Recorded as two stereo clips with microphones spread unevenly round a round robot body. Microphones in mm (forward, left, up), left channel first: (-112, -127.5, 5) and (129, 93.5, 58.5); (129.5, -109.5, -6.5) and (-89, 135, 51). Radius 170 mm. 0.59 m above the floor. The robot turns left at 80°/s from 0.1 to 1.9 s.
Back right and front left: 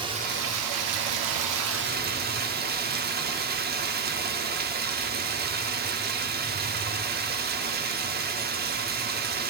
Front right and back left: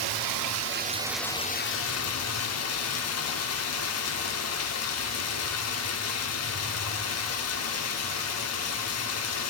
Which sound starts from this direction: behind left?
Running water, at 0.0 s.